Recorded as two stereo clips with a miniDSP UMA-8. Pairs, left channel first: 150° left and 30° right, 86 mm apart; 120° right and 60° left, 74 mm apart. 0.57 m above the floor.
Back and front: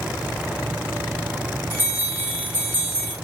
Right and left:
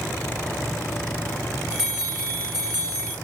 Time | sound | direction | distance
1.7 | a bell | 85° right | 1.9 m